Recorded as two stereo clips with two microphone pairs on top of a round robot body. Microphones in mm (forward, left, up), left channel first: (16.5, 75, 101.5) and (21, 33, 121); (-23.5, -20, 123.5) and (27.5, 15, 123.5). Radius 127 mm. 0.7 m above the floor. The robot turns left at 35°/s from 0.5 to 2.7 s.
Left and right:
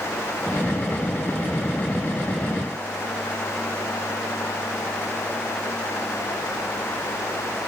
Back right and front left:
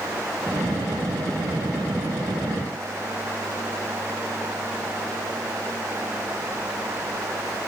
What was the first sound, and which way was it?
Only background noise.